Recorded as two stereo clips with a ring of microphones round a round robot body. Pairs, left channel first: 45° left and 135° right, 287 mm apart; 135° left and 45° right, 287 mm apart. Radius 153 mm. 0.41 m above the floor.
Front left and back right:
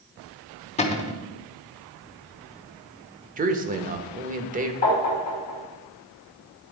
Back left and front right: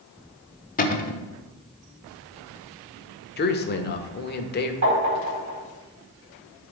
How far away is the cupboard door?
About 1.1 m.